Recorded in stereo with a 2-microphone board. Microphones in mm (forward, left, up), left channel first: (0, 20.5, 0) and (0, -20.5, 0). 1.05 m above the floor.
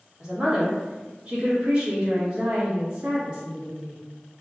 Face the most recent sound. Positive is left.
turn(degrees=-20)  # may be behind; listen again after turning